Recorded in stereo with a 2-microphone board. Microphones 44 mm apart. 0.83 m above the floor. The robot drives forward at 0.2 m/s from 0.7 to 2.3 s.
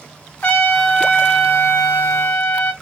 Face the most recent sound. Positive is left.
turn(degrees=55)  # may be behind; listen again after turning